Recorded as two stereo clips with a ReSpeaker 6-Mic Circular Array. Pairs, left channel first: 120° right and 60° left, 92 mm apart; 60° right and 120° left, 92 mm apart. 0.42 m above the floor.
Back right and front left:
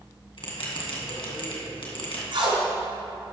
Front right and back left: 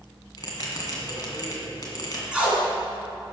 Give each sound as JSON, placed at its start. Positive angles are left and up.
{"t": 0.4, "sound": "a bell", "azimuth_deg": -105, "distance_m": 2.5}
{"t": 2.3, "sound": "tape being pulled", "azimuth_deg": 40, "distance_m": 2.5}